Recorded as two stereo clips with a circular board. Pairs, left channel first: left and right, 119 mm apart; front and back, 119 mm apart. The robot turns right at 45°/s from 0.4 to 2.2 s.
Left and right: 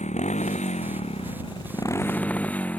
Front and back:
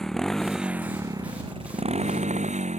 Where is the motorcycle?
85° left; by 2.8 s 170° left.